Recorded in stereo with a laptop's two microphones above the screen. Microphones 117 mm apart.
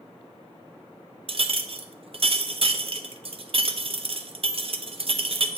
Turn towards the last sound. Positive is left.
turn(degrees=-50)  # may be behind; listen again after turning